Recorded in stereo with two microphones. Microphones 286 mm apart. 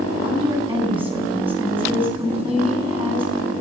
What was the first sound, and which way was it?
A woman speaking, 15° right (ahead or behind).